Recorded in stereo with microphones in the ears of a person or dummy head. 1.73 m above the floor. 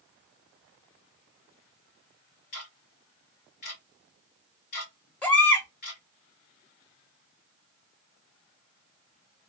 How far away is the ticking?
About 0.9 m.